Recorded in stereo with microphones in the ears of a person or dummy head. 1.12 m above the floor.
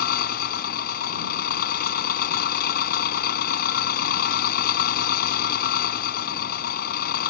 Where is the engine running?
50° left (ahead or behind).